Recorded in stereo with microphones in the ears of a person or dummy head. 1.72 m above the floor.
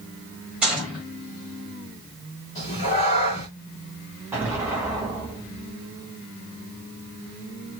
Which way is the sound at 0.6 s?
5° right (ahead or behind).